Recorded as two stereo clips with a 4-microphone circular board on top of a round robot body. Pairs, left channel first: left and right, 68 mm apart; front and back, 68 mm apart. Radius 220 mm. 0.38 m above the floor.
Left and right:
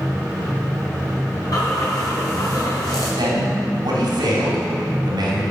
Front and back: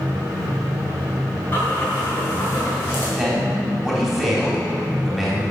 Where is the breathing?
60° left, 4.5 m.